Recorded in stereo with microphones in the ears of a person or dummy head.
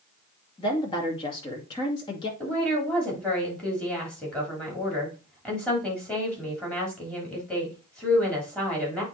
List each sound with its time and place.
0.6 s a woman speaking: 20° left (ahead or behind), 2.5 m
2.4 s a woman speaking: 5° left (ahead or behind), 3.5 m